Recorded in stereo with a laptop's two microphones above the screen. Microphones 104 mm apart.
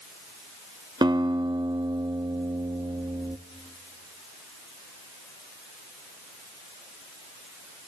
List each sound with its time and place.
1.0 s a guitar: 40° right (ahead or behind), 0.7 m